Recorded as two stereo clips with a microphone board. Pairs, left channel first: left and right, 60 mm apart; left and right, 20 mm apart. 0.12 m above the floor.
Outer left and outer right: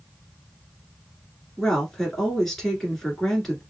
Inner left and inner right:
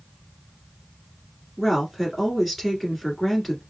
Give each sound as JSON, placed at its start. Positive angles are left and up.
{"t": 1.6, "sound": "a woman speaking", "side_deg": 5, "distance_m": 1.8}